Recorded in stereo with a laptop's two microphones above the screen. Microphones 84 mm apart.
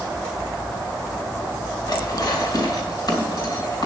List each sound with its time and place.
1.9 s dishes clattering: 55° left (ahead or behind), 3 m